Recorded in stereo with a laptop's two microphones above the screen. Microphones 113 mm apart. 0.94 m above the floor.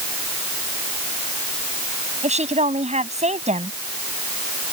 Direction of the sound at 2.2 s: 85° right.